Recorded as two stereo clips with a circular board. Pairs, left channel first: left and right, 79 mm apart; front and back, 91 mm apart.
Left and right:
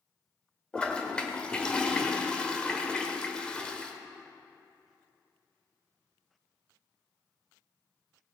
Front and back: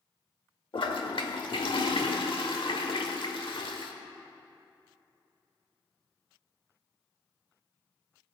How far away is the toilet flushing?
About 1.1 m.